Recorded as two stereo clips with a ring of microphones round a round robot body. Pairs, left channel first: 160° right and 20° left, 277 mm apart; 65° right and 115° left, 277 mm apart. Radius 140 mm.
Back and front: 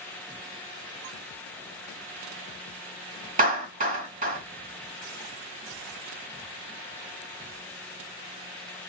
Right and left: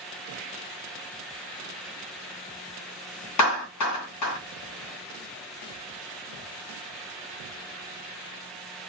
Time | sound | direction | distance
3.4 | a clap | 40° right | 2.5 m